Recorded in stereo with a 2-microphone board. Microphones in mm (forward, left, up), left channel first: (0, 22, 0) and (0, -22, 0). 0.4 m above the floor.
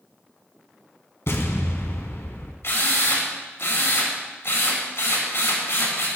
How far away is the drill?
About 4.5 m.